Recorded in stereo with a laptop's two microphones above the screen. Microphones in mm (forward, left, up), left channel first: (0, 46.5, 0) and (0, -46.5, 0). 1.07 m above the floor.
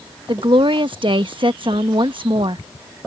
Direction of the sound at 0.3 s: 60° right (ahead or behind).